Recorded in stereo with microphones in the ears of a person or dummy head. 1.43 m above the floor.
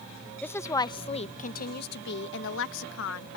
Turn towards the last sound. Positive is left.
turn(degrees=75)  # may be behind; listen again after turning